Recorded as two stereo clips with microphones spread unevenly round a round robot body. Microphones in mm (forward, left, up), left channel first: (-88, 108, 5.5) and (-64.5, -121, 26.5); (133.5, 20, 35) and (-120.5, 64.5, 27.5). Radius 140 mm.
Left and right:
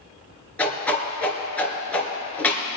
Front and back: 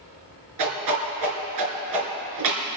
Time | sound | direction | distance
0.6 | a whoosh | straight behind | 3 m